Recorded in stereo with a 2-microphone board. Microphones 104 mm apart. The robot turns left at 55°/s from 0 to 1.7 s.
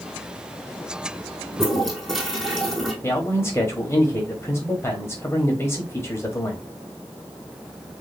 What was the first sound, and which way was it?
A toilet flushing, 10° left (ahead or behind).